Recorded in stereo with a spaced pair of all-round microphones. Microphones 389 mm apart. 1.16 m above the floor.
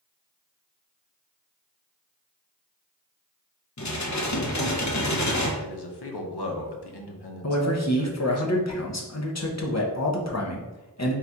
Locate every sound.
3.8 s dishes clattering: 45° left (ahead or behind), 0.6 m
5.6 s a man speaking: 80° left, 0.8 m
7.4 s a man speaking: 40° left (ahead or behind), 0.8 m